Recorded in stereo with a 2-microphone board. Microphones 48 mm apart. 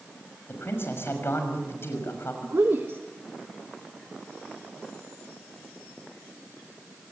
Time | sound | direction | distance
0.5 | a man speaking | 55° left (ahead or behind) | 6 m
2.4 | a woman speaking | 55° right (ahead or behind) | 1.5 m